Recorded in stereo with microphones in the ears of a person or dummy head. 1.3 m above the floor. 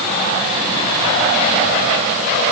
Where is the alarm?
No alarm in this recording.